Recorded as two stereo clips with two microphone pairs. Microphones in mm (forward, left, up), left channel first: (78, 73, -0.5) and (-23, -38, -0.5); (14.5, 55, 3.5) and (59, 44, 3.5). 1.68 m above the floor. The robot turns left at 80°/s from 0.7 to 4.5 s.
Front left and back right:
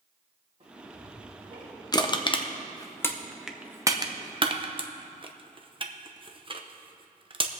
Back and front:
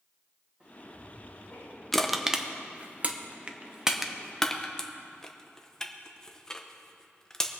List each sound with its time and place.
0.6 s ticking: 85° right, 2.5 m; by 1.8 s 170° right, 2.5 m
1.9 s crushing: 80° left, 0.7 m; by 7.5 s 125° right, 0.7 m